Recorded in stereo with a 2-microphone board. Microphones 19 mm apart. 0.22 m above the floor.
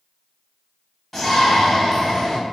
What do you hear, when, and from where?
1.1 s a shout: 5° left (ahead or behind), 1.0 m